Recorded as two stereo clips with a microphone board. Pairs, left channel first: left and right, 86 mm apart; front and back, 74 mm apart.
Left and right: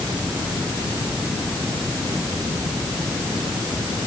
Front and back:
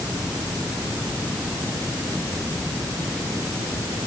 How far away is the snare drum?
I don't hear a snare drum.